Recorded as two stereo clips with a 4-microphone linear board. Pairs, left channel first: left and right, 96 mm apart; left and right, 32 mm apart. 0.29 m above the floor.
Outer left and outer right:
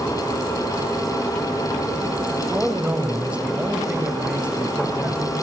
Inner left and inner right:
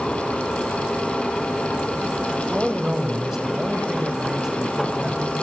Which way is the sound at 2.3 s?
15° right (ahead or behind).